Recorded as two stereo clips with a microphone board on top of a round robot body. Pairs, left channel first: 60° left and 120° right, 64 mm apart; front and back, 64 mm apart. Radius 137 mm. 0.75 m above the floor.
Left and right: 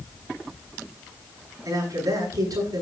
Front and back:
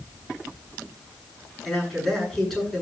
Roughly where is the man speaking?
Right.